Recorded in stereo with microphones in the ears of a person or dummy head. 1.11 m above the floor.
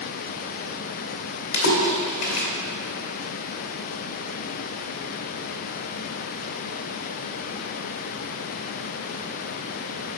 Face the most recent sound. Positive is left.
turn(degrees=70)  # may be behind; listen again after turning